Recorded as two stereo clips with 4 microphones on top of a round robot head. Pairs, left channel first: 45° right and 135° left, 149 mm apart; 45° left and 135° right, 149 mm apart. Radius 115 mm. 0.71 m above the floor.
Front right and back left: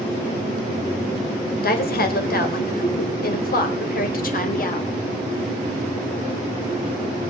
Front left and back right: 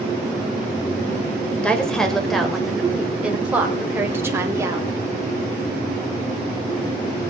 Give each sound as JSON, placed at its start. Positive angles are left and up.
{"t": 1.6, "sound": "a woman speaking", "azimuth_deg": -40, "distance_m": 4.0}